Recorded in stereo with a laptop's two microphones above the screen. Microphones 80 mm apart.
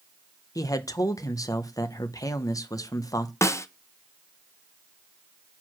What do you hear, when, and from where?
0.6 s a man speaking: 45° left (ahead or behind), 0.6 m
3.4 s a snare drum: 35° left (ahead or behind), 0.5 m